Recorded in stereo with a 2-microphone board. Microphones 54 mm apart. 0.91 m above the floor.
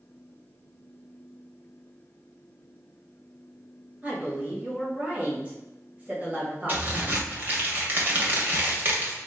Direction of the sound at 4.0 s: 30° right (ahead or behind).